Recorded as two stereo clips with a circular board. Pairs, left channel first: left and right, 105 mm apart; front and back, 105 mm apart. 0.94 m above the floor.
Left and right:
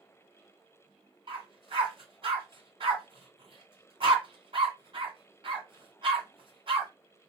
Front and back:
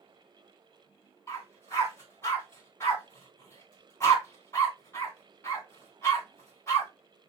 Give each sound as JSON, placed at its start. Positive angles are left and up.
{"t": 1.3, "sound": "a dog barking", "azimuth_deg": -60, "distance_m": 1.8}